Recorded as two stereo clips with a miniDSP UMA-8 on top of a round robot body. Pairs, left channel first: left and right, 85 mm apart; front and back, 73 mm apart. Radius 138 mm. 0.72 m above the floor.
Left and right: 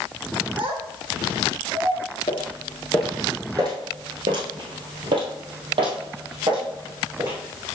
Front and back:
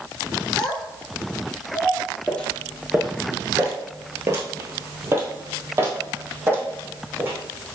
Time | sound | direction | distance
0.6 | a child speaking | 80° right | 1.1 m
2.3 | footsteps | 75° left | 0.8 m